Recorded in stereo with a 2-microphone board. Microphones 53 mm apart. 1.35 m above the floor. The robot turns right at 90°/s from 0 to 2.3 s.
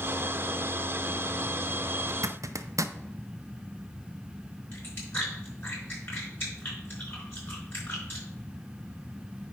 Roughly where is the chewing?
Left.